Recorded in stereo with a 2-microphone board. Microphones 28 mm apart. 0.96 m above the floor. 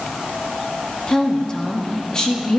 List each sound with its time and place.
1.1 s a woman speaking: 30° left (ahead or behind), 2 m